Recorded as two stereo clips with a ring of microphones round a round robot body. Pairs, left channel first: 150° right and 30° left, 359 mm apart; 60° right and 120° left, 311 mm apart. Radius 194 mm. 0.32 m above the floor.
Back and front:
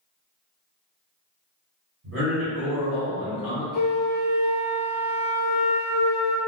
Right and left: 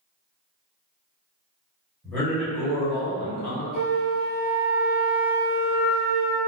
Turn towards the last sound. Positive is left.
turn(degrees=-65)